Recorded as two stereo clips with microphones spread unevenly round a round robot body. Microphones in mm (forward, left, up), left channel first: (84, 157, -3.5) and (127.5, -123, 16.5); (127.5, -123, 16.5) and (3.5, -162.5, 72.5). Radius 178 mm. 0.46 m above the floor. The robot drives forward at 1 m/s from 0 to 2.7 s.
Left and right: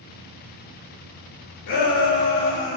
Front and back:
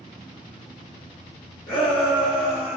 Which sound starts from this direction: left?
A shout, at 1.7 s.